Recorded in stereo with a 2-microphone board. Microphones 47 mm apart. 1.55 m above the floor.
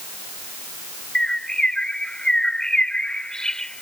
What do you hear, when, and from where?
1.1 s a bird: 15° left (ahead or behind)